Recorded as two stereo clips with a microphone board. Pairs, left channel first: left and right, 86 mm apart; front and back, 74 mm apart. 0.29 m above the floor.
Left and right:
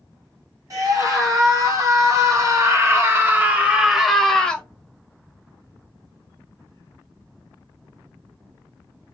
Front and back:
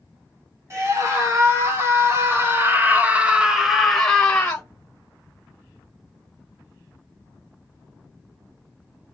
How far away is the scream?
About 2.5 m.